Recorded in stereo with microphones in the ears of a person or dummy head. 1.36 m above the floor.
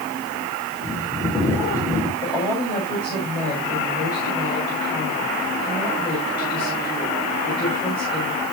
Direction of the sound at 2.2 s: 25° left (ahead or behind).